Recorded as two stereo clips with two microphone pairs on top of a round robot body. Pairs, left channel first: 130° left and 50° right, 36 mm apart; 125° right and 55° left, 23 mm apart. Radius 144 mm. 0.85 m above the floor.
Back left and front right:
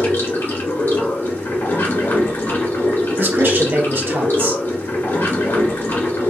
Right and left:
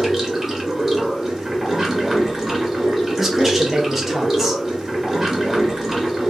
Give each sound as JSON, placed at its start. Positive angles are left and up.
{"t": 0.0, "sound": "running water", "azimuth_deg": 130, "distance_m": 1.4}
{"t": 3.2, "sound": "a man speaking", "azimuth_deg": -30, "distance_m": 1.0}